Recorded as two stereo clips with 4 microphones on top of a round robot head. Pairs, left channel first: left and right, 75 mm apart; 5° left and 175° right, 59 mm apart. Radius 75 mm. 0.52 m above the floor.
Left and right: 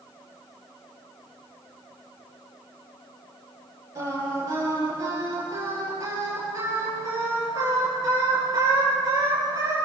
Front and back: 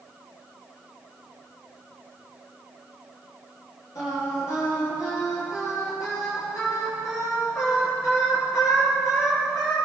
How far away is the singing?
About 10 m.